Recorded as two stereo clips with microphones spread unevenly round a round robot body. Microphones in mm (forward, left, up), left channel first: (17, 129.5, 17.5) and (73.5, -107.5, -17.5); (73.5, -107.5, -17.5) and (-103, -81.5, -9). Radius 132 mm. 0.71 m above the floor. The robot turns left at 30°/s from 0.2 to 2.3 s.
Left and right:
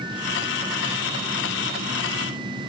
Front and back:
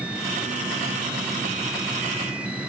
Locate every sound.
Only background noise.